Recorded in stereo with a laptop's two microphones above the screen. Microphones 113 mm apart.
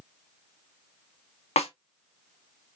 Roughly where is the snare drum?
Left.